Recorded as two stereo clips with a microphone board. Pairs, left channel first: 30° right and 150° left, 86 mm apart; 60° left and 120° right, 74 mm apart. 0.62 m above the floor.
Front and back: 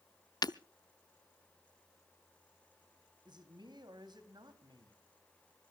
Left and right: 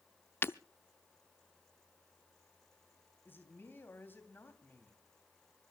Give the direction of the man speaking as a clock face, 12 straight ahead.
8 o'clock.